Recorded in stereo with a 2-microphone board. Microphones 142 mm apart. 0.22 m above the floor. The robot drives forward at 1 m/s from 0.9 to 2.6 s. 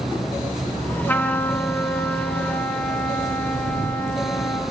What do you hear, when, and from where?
1.1 s a trumpet: 15° left (ahead or behind), 2.5 m; by 4.6 s 10° left (ahead or behind), 3.5 m